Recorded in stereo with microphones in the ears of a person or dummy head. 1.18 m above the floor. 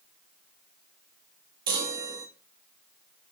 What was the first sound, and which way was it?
A chime, 25° right (ahead or behind).